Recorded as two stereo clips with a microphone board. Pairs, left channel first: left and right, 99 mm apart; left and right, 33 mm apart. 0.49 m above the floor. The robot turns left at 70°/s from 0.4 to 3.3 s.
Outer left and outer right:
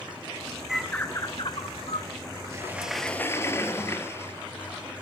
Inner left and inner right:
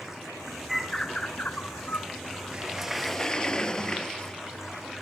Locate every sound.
0.7 s a bird: 175° right, 1.1 m; by 2.1 s 90° left, 1.1 m
2.5 s a sliding door: 150° right, 1.5 m; by 4.3 s 155° left, 1.5 m